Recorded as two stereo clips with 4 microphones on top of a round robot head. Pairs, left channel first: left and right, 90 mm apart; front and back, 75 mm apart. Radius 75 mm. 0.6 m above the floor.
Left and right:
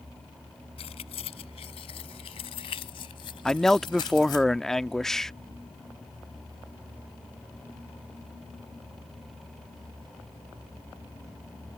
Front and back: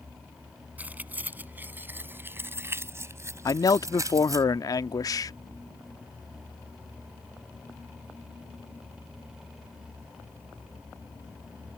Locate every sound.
0.8 s keys jangling: 110° left; by 4.5 s 140° left
3.5 s a man speaking: 5° left